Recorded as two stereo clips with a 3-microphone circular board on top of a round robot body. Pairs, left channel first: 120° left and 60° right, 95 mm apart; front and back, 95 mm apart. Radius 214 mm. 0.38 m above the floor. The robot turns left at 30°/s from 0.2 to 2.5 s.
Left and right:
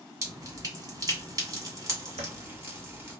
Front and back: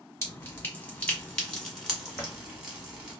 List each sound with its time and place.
0.2 s dripping: 35° right, 1.7 m; by 3.2 s 105° right, 1.7 m
2.2 s a drawer: 70° right, 0.7 m; by 2.4 s 80° right, 0.7 m